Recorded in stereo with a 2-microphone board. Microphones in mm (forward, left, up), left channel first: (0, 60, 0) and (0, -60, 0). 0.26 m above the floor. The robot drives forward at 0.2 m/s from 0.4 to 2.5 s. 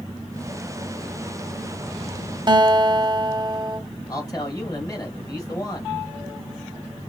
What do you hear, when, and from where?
2.5 s a guitar: 40° right (ahead or behind), 0.6 m
4.1 s a man speaking: 30° left (ahead or behind), 1.7 m